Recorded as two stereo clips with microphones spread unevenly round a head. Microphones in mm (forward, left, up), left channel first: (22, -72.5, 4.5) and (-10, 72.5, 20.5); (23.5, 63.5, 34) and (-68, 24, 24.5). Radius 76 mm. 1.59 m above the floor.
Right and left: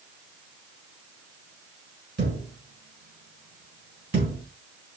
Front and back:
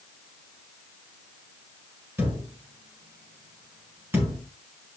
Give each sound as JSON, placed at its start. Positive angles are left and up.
{"t": 2.2, "sound": "a thud", "azimuth_deg": 135, "distance_m": 6.0}